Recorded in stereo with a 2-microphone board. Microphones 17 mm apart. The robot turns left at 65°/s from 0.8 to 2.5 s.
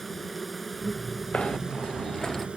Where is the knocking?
100° left; by 2.5 s 25° left.